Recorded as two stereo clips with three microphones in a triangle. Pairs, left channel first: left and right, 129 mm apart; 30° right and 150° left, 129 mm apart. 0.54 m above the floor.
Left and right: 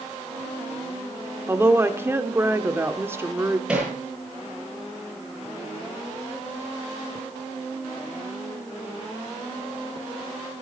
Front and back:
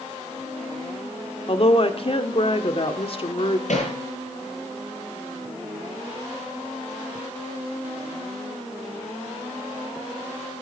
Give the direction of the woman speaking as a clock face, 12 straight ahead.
1 o'clock.